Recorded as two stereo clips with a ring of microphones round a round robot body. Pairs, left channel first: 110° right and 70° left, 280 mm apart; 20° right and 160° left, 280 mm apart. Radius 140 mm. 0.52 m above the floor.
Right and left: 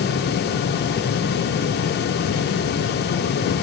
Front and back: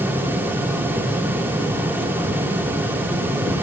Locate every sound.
Only background noise.